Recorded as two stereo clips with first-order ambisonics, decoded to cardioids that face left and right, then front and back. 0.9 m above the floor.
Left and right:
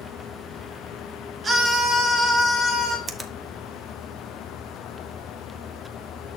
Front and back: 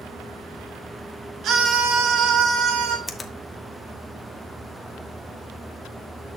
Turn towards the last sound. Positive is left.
turn(degrees=-50)